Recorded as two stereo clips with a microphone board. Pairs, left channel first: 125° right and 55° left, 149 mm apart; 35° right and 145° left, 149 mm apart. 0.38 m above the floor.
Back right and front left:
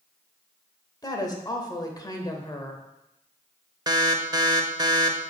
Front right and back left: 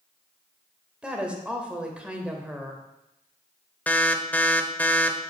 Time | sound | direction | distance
1.0 | a woman speaking | 140° right | 1.0 m
3.9 | an alarm | 30° left | 0.6 m